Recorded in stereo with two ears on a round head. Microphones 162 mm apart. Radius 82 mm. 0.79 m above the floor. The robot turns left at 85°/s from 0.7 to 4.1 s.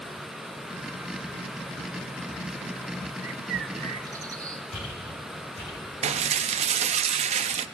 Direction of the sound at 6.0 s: 35° right (ahead or behind).